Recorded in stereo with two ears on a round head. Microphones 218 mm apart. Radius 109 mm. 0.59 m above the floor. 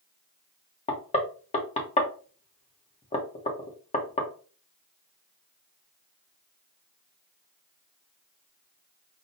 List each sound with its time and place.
0.9 s knocking: 25° left (ahead or behind), 1.0 m